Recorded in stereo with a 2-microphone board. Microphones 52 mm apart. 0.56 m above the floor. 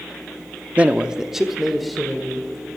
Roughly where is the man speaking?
Right.